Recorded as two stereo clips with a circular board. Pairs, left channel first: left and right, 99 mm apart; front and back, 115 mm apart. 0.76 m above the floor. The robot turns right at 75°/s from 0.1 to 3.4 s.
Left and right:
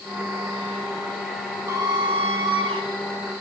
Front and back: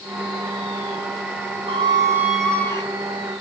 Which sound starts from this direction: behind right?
A squeak, at 1.7 s.